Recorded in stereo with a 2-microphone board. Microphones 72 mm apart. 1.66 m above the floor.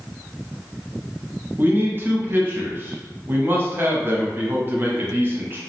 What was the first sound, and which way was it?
A man speaking, 30° right (ahead or behind).